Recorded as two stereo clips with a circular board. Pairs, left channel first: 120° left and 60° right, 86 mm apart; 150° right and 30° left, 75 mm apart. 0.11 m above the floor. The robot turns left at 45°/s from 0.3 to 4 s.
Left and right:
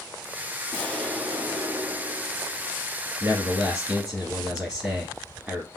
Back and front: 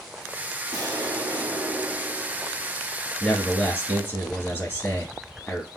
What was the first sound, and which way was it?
An explosion, 55° left.